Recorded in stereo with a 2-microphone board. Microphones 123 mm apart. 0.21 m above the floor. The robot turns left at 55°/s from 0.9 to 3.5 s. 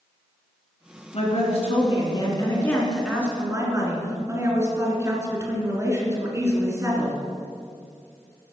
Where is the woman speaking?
100° left, 2.5 m; by 7.2 s 30° right, 2.5 m.